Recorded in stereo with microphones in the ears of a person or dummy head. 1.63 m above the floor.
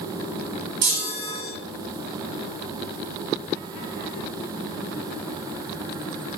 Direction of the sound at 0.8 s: 55° right (ahead or behind).